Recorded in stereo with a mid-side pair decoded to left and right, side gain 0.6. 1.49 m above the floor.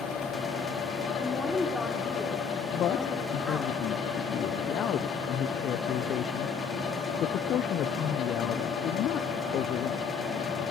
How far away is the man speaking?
About 0.7 m.